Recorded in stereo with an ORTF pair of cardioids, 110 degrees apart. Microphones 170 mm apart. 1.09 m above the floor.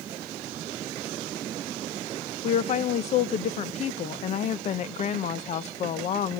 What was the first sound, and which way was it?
A woman speaking, 50° left.